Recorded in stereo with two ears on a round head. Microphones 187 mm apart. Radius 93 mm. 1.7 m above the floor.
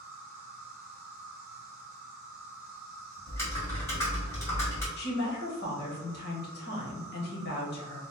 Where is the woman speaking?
55° left (ahead or behind), 1.3 m.